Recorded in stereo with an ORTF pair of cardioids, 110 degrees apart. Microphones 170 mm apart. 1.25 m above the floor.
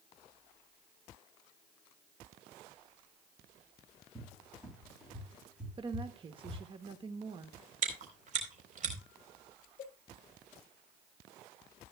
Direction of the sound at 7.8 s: 45° right.